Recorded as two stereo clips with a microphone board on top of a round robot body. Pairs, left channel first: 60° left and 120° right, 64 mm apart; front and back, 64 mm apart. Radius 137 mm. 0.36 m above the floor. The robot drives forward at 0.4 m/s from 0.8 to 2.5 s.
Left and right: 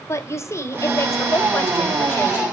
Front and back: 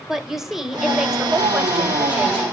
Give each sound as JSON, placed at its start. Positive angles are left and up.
{"t": 0.1, "sound": "a woman speaking", "azimuth_deg": 100, "distance_m": 2.0}